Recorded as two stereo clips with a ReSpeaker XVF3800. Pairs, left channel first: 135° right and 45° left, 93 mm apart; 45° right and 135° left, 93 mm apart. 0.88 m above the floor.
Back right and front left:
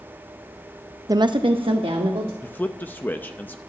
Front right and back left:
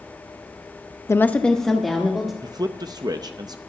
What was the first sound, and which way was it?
A woman speaking, 5° left.